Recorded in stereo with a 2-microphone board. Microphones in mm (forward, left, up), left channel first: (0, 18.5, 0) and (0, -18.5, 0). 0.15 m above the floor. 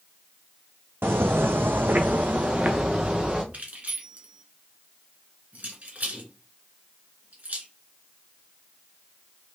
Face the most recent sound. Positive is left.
turn(degrees=-45)  # may be behind; listen again after turning